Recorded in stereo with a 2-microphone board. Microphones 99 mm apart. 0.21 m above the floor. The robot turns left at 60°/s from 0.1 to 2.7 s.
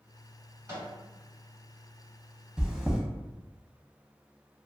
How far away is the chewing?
About 0.5 m.